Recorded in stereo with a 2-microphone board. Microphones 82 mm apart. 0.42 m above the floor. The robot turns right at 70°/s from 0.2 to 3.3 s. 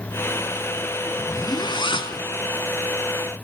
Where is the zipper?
35° left, 1.3 m; by 2.2 s 110° left, 1.3 m.